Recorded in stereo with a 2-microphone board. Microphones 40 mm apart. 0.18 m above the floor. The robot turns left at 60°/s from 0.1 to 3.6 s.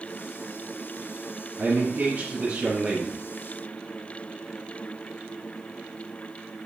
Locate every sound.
1.6 s a man speaking: 90° right, 1.9 m; by 3.2 s 175° left, 1.9 m